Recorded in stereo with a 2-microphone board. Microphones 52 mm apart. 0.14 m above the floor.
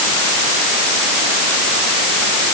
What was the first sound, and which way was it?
Only background noise.